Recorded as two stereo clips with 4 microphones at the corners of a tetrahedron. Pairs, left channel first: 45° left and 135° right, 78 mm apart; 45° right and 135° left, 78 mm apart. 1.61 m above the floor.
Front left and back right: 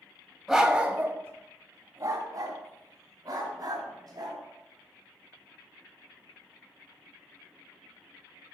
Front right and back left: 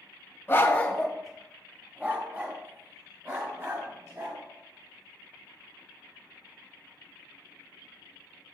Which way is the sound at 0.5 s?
50° right.